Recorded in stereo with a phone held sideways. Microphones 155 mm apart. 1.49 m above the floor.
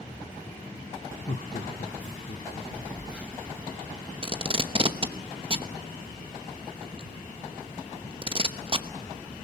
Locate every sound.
1.3 s laughter: 60° left (ahead or behind), 0.9 m; by 2.6 s 65° left (ahead or behind), 1.7 m
2.7 s a phone buzzing: 5° right (ahead or behind), 3 m
4.2 s tape being pulled: 35° right (ahead or behind), 0.9 m